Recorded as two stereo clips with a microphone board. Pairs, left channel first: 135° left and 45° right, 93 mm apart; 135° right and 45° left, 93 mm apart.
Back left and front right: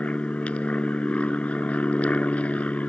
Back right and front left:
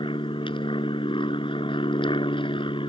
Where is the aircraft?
150° right.